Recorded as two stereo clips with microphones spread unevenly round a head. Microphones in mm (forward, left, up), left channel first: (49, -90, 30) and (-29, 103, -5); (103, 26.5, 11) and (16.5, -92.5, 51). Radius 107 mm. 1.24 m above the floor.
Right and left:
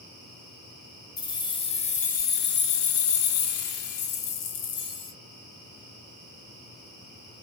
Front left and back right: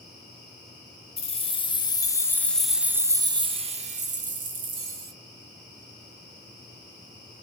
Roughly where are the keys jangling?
Ahead.